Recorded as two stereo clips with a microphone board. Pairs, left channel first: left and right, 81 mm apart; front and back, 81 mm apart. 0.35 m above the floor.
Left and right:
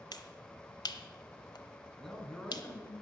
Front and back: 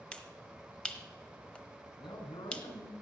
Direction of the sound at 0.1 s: 75° left.